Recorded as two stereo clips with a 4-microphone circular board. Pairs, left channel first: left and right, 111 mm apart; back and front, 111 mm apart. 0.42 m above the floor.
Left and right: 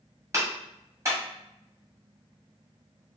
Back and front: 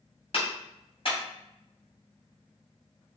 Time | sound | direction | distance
0.3 | a clap | 150° right | 2.5 m